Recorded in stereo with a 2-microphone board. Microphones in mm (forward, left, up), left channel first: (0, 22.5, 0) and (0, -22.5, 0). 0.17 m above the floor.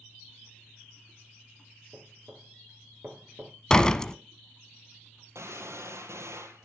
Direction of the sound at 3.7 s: 15° left (ahead or behind).